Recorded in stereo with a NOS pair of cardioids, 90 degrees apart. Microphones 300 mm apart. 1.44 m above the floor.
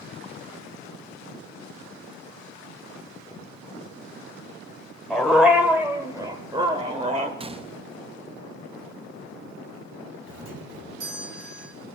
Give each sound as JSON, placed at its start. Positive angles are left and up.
{"t": 5.1, "sound": "a dog barking", "azimuth_deg": 0, "distance_m": 2.5}
{"t": 7.4, "sound": "a gunshot", "azimuth_deg": -20, "distance_m": 0.7}
{"t": 10.3, "sound": "a doorbell", "azimuth_deg": -50, "distance_m": 4.5}